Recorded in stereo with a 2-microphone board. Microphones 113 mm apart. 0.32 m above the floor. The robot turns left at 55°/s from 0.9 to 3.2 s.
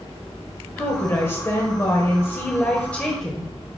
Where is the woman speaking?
15° left (ahead or behind), 1.3 m; by 3.5 s 5° left (ahead or behind), 1.3 m.